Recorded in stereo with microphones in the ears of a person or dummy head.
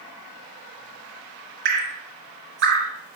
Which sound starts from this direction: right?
Dripping, at 1.6 s.